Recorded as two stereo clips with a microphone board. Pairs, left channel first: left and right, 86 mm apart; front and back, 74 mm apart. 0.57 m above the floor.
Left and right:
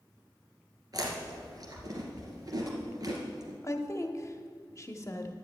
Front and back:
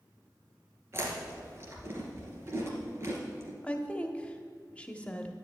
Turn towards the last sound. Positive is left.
turn(degrees=65)